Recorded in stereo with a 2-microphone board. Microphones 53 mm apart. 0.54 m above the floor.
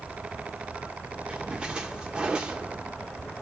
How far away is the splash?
About 1.1 m.